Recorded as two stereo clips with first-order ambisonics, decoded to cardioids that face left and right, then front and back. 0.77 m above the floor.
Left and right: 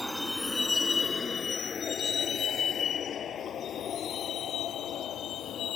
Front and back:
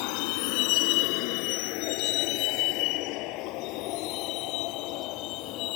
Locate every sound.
0.0 s a vehicle: straight ahead; by 5.8 s 35° left